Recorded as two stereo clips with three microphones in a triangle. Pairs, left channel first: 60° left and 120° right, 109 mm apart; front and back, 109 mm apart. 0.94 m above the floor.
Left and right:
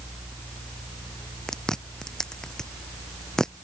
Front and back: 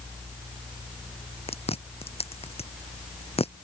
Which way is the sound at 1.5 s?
25° right.